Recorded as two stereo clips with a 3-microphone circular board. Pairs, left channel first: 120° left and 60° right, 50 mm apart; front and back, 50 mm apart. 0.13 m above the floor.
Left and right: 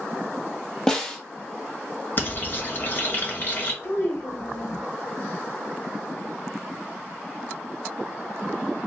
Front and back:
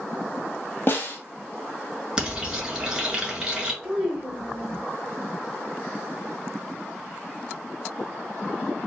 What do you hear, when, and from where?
0.9 s a snare drum: 40° left, 1.2 m
2.2 s frying: 105° left, 1.9 m
3.8 s a child speaking: 85° left, 3.5 m